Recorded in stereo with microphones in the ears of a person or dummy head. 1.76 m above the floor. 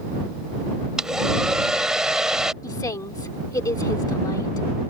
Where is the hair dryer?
5° right (ahead or behind).